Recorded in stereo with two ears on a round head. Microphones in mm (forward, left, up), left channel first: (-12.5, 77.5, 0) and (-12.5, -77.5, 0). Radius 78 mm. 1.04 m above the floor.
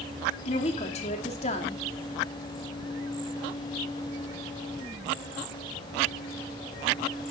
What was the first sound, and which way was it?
A woman speaking, 40° left (ahead or behind).